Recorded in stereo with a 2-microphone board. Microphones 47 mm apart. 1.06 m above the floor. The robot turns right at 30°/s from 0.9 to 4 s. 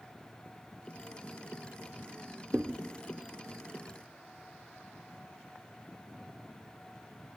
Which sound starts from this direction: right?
A thud, at 2.5 s.